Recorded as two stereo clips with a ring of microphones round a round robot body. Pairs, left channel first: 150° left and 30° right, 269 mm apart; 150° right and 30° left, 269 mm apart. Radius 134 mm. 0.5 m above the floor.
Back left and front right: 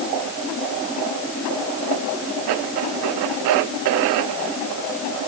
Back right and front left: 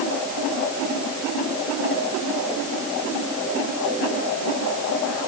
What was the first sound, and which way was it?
Only background noise.